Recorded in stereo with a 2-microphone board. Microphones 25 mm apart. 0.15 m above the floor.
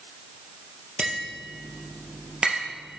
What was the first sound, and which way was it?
Tapping, 40° right (ahead or behind).